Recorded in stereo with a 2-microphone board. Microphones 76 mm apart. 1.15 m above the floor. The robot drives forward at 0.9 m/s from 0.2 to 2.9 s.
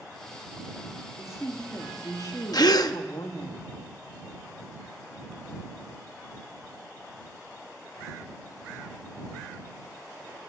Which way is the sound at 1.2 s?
40° left (ahead or behind).